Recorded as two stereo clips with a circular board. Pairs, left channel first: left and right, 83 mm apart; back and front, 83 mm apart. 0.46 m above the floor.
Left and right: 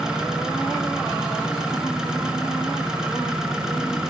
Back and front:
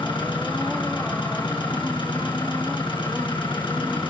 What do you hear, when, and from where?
0.0 s an engine running: 170° right, 6 m